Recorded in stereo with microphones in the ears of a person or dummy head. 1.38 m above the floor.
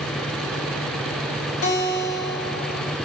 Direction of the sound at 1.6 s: 85° left.